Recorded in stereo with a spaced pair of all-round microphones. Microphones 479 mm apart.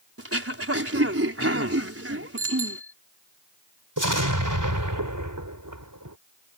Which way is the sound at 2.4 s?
55° right (ahead or behind).